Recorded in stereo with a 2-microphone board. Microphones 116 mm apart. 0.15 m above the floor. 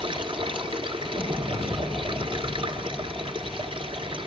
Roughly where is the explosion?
Centre.